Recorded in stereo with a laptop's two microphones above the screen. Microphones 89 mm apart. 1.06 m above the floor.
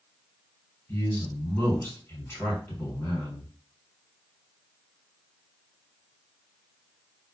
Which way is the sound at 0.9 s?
25° left (ahead or behind).